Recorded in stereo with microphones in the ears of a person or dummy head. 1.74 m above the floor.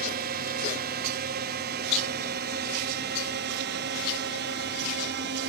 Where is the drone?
40° right (ahead or behind); by 5.5 s 50° right (ahead or behind).